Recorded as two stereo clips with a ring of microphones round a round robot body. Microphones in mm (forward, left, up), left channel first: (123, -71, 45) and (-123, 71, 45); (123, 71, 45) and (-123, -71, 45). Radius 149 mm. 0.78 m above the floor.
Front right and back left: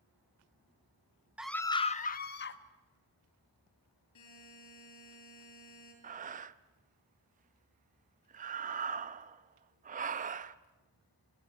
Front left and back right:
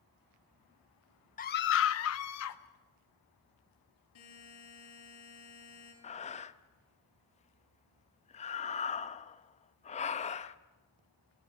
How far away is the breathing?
About 0.6 m.